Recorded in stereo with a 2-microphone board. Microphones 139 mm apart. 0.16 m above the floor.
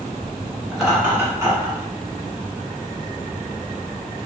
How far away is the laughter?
About 1.5 m.